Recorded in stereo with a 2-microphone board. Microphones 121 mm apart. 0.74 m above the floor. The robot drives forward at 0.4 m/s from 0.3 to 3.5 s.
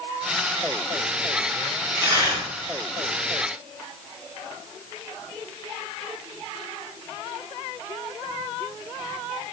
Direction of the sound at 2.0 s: 25° right (ahead or behind).